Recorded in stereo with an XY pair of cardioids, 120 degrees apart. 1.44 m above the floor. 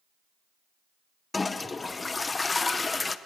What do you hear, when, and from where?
1.3 s a toilet flushing: 20° left, 0.7 m